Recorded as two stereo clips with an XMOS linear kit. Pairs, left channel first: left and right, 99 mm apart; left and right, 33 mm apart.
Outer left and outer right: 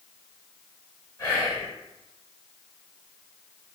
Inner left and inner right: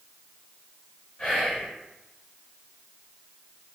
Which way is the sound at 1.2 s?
30° left (ahead or behind).